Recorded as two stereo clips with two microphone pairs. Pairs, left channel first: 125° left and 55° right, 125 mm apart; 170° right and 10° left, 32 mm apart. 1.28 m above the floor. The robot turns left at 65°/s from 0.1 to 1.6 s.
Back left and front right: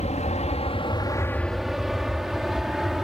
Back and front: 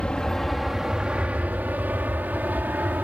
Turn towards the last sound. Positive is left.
turn(degrees=30)